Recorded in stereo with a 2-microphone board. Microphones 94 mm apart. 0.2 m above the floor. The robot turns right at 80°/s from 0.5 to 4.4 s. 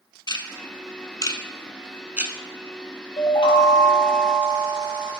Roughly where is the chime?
Left.